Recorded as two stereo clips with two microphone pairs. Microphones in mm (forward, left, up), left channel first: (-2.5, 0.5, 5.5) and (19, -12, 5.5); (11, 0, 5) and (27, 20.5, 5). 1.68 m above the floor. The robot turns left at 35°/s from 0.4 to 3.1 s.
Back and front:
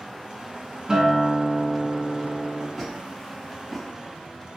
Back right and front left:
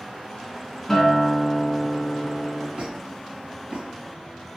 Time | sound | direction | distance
0.9 | a guitar | 70° right | 1.3 m
2.8 | a squeak | 60° left | 2 m